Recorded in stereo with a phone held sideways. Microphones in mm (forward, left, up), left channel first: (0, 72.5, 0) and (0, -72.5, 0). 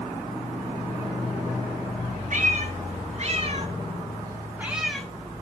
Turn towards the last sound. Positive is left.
turn(degrees=5)  # may be behind; listen again after turning